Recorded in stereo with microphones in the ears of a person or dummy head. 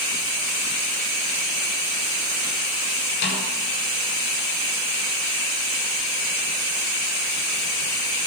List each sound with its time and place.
3.2 s a snare drum: 55° left (ahead or behind), 6.5 m